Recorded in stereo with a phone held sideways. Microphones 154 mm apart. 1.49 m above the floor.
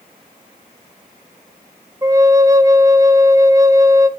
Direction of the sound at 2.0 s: 20° right (ahead or behind).